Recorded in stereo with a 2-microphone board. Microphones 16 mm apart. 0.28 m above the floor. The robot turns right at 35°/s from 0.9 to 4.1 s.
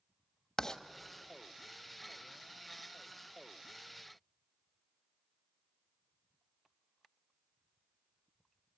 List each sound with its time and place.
0.6 s writing: 30° left (ahead or behind), 1.1 m